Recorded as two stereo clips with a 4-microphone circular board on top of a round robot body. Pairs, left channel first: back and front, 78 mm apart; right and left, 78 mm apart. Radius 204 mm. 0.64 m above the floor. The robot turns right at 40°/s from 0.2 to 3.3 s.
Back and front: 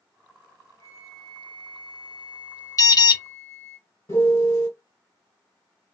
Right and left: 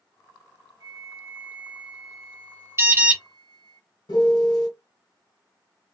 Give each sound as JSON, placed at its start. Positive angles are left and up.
{"t": 0.8, "sound": "a flute", "azimuth_deg": 125, "distance_m": 0.5}
{"t": 2.8, "sound": "an alarm", "azimuth_deg": 140, "distance_m": 0.9}
{"t": 4.1, "sound": "a piano", "azimuth_deg": -125, "distance_m": 1.5}